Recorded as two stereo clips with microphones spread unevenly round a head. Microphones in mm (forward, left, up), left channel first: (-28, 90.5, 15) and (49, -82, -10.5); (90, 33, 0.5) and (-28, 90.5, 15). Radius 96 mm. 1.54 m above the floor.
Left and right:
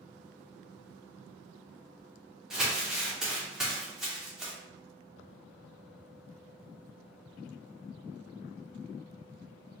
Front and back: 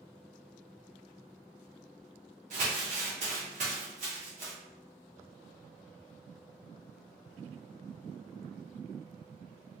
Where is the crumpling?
155° right, 0.6 m.